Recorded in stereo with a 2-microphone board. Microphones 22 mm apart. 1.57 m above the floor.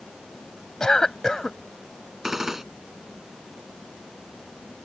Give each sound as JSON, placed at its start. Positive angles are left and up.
{"t": 0.8, "sound": "a cough", "side_deg": 25}
{"t": 2.2, "sound": "a gunshot", "side_deg": -20}